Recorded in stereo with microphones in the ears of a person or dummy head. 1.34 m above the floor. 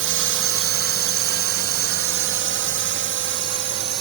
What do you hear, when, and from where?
0.0 s a drone: 60° right (ahead or behind); by 4.0 s 50° right (ahead or behind)